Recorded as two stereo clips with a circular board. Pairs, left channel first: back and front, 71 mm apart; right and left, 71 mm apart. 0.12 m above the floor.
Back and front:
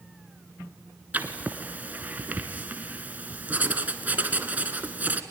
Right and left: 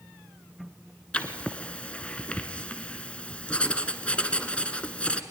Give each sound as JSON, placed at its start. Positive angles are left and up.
{"t": 1.1, "sound": "writing", "azimuth_deg": -35, "distance_m": 1.3}